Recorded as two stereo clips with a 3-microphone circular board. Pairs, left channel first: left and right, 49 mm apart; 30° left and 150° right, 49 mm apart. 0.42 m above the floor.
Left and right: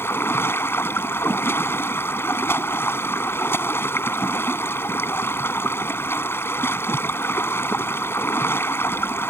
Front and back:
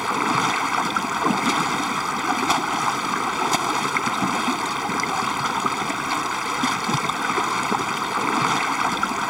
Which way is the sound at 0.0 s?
125° left.